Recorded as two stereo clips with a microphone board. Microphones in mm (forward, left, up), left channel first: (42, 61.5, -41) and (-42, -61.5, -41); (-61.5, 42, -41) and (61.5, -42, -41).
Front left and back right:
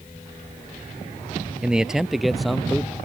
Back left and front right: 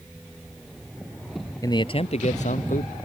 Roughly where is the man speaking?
Behind.